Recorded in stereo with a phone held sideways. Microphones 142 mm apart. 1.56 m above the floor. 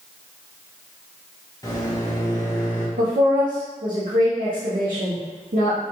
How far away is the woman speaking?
About 0.7 m.